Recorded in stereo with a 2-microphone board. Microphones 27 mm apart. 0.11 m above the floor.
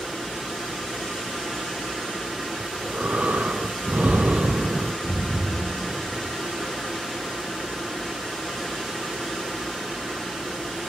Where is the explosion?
20° left (ahead or behind), 2.5 m.